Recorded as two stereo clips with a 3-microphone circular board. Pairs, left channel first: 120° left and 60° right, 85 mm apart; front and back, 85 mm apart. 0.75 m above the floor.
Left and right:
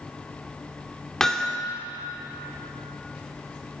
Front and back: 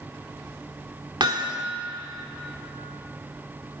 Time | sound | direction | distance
1.2 | hammering | 155° right | 2.0 m